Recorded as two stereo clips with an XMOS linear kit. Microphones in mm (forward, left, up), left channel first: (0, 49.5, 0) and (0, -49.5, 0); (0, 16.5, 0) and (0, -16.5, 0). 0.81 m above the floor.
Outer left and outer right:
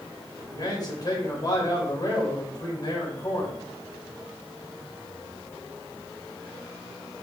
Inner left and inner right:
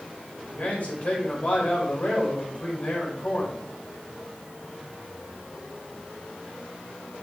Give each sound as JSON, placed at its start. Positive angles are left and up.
{"t": 0.5, "sound": "a man speaking", "side_deg": 45, "distance_m": 3.5}